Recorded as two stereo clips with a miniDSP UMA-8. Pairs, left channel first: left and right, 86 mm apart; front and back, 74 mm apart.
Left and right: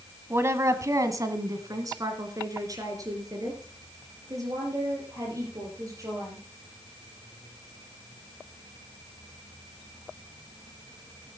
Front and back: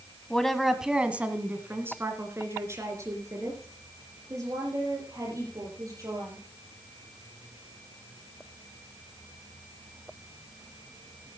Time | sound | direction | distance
0.3 | a woman speaking | 70° right | 1.2 m